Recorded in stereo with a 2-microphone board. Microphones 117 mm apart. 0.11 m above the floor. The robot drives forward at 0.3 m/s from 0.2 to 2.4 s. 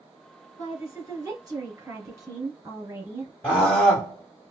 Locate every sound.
0.6 s a woman speaking: 25° right (ahead or behind), 2.0 m
3.4 s a scream: 10° left (ahead or behind), 1.6 m